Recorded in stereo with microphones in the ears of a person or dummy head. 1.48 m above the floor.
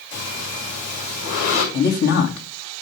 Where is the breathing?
75° left (ahead or behind), 6 m.